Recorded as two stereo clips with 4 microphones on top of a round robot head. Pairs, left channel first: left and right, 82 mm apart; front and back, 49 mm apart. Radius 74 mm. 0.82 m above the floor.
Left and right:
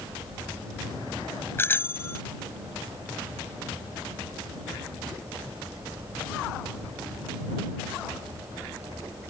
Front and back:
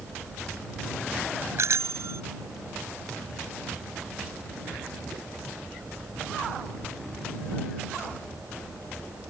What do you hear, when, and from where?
1.6 s a bicycle bell: 155° left